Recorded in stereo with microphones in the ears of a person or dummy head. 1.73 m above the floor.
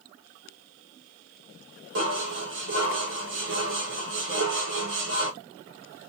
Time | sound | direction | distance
1.9 | dishes clattering | 60° right (ahead or behind) | 1.5 m